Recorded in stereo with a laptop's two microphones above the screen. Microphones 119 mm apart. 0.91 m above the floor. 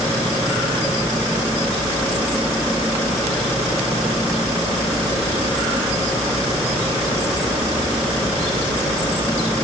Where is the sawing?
No sawing in this recording.